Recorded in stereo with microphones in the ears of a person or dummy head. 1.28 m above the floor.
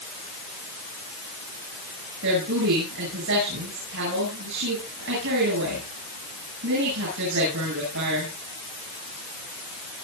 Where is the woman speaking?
65° right (ahead or behind), 9.5 m.